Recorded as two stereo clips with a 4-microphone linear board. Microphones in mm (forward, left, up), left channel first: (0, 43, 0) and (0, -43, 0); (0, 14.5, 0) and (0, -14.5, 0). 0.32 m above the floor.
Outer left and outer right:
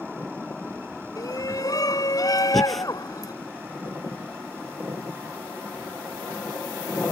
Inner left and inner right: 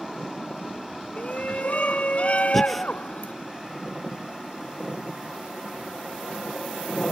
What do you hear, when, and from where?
1.2 s a shout: 45° left (ahead or behind)
2.5 s breathing: centre (ahead or behind)